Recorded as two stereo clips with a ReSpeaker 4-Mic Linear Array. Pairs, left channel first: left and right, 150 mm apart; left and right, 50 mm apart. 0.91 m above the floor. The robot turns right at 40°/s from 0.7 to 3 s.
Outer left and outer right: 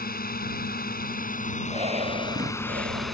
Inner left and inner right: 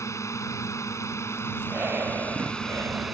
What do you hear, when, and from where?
0.0 s a drone: 90° left; by 3.1 s straight behind
1.6 s breathing: 140° right; by 3.1 s 90° right